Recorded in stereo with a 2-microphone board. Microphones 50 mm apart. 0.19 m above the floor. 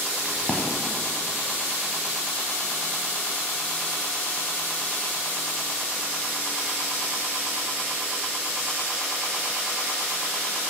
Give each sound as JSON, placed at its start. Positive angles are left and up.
{"t": 0.2, "sound": "a crack", "side_deg": 0, "distance_m": 1.1}